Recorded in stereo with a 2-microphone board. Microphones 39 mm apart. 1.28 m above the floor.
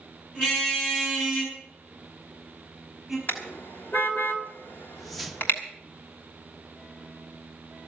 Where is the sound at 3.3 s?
65° left (ahead or behind), 3 m.